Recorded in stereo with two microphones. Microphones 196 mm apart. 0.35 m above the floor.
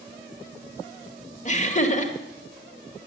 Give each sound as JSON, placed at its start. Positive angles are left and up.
{"t": 1.4, "sound": "laughter", "side_deg": 35, "distance_m": 1.3}